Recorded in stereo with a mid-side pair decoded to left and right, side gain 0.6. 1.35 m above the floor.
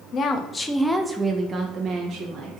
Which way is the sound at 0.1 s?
50° left.